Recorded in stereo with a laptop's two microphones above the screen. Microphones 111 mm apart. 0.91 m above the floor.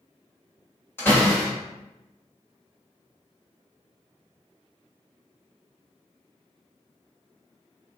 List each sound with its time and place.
1.0 s a door slam: 20° left (ahead or behind), 1.1 m